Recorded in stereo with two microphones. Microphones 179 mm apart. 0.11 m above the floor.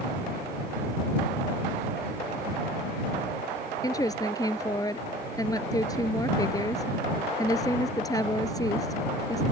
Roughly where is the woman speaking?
Left.